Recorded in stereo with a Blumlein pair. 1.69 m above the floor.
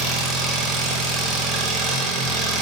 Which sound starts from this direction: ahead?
An engine running, at 0.0 s.